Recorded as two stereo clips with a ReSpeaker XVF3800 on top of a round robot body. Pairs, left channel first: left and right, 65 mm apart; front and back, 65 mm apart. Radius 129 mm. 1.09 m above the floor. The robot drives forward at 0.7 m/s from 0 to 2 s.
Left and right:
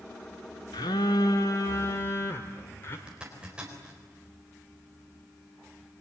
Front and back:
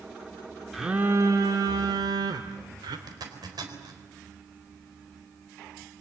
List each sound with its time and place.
0.7 s a phone buzzing: 90° left, 0.8 m; by 3.0 s 150° left, 1.2 m
3.1 s a zipper: 165° right, 4 m